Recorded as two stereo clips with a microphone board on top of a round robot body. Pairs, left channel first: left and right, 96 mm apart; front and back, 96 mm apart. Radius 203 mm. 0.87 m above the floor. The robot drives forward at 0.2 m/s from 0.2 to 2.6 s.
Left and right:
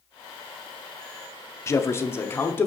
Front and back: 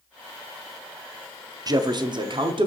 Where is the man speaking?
145° left, 0.5 m; by 2.7 s 155° left, 0.6 m.